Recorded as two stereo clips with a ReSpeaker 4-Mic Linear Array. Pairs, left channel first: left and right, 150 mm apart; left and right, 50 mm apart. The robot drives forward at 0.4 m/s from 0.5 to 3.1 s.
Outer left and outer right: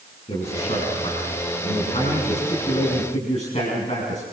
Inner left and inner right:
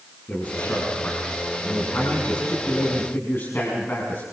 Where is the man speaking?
40° left (ahead or behind), 5.5 m; by 4.2 s 50° left (ahead or behind), 5 m.